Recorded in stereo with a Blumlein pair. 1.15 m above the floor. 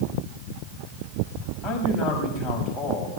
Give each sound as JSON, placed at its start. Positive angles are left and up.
{"t": 1.6, "sound": "a man speaking", "azimuth_deg": 20, "distance_m": 6.5}